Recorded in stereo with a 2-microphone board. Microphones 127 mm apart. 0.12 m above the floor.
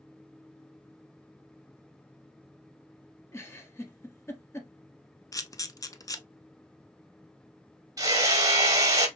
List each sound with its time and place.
3.3 s a giggle: 20° left (ahead or behind), 0.9 m
5.3 s a camera shutter: 25° left (ahead or behind), 0.5 m
8.0 s hammering: 30° right (ahead or behind), 1.0 m